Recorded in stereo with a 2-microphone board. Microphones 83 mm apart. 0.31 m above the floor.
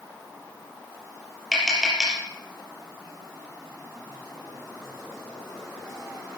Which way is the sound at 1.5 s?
Centre (ahead or behind).